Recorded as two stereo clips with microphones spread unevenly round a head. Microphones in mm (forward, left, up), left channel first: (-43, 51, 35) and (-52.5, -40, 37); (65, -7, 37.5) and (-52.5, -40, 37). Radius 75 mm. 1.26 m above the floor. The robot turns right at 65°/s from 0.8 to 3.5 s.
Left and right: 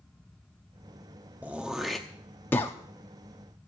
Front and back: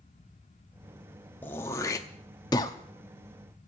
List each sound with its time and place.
1.4 s throat clearing: 40° right, 0.7 m; by 2.8 s 45° left, 0.7 m